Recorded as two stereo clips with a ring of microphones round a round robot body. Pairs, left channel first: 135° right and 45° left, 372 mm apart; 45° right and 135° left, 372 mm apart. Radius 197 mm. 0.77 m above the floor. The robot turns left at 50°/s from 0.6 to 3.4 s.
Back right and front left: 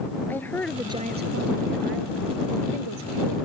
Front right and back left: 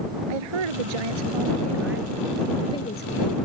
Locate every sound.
0.3 s a woman speaking: 140° left; by 3.4 s straight ahead